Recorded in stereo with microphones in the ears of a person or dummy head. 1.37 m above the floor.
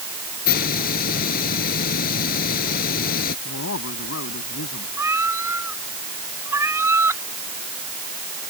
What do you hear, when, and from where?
0.5 s a hiss: 55° left (ahead or behind)
3.5 s a man speaking: 85° left
5.0 s a cat meowing: 10° right (ahead or behind)